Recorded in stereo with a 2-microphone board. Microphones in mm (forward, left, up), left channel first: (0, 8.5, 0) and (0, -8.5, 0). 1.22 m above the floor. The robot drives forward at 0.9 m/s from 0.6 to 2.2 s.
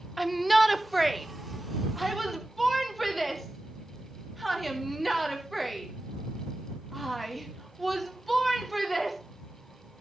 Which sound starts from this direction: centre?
A shout, at 0.2 s.